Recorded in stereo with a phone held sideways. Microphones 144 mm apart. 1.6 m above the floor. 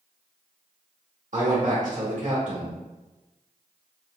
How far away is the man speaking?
About 1.3 m.